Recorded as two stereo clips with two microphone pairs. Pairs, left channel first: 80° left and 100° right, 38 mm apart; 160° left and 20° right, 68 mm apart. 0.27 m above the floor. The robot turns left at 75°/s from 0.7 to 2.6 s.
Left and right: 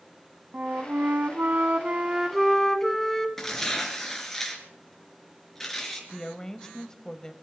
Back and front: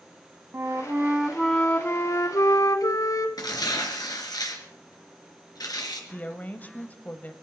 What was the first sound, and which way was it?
A flute, 60° right.